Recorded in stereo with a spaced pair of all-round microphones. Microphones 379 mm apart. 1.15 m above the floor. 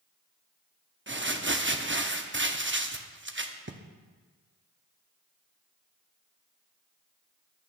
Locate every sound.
1.1 s crumpling: 30° right (ahead or behind), 0.7 m